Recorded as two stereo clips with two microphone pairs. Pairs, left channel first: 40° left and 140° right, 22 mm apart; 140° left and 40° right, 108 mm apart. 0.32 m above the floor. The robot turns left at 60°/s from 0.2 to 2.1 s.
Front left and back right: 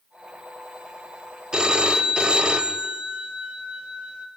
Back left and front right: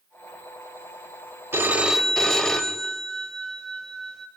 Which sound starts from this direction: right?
A phone ringing, at 1.5 s.